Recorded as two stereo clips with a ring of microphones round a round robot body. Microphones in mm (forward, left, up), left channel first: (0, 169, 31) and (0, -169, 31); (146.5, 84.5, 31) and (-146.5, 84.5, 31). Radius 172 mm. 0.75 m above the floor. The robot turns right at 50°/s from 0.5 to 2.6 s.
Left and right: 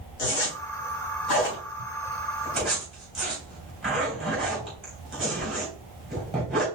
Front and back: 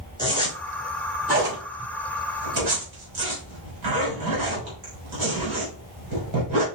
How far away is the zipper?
About 3 m.